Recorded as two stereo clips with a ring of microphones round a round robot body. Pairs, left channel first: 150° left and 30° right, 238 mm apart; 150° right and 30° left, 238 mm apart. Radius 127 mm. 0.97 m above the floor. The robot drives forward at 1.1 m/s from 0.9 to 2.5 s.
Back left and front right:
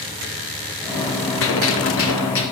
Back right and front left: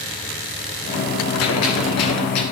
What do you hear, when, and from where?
1.4 s a gunshot: 175° right, 2.5 m